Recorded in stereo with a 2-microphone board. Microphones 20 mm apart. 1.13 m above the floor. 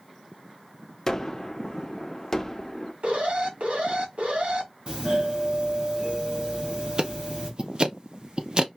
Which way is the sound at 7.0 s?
45° right (ahead or behind).